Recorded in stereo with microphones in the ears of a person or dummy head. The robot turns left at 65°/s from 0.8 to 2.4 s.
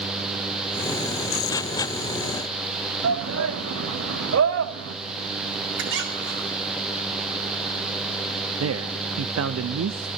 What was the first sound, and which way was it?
A shout, 80° right.